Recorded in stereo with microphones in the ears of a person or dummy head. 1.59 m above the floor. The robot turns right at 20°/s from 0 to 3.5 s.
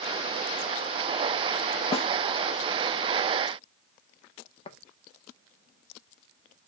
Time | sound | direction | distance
1.9 | a snare drum | 40° left (ahead or behind) | 1.6 m
4.7 | tapping | 30° left (ahead or behind) | 1.6 m